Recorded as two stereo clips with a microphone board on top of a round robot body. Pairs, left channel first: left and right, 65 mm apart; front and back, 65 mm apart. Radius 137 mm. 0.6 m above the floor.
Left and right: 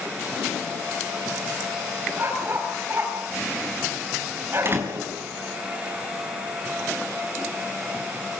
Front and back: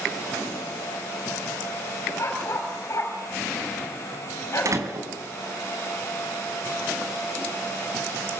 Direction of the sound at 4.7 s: 145° right.